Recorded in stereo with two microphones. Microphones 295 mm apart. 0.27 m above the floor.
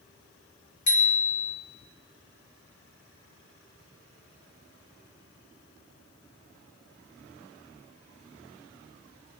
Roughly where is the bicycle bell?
Left.